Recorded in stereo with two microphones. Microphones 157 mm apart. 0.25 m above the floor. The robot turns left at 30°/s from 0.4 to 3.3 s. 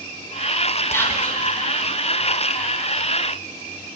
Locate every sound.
0.9 s whispering: 20° left (ahead or behind), 1.4 m; by 1.5 s 5° left (ahead or behind), 1.4 m